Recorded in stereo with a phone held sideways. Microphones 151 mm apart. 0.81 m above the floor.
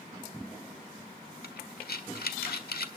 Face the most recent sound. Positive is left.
turn(degrees=80)